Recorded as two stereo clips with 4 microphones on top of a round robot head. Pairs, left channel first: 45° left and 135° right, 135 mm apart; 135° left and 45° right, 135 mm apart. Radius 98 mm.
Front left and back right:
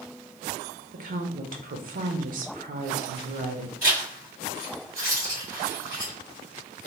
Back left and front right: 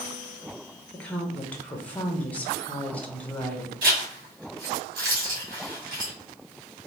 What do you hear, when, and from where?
0.9 s a woman speaking: 145° right, 0.6 m
3.8 s a zipper: 60° right, 1.6 m